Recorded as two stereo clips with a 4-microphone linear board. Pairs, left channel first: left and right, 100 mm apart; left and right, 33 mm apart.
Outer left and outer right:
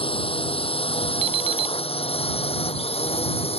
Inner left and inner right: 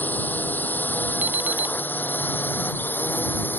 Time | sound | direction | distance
0.0 | a drone | 65° left (ahead or behind) | ?
1.2 | an alarm clock | 70° right (ahead or behind) | ?